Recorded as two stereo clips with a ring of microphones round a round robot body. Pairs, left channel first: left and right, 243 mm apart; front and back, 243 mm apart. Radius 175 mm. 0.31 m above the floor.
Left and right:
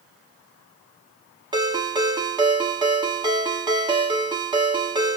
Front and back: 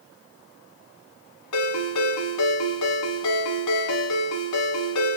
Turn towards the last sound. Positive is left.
turn(degrees=-15)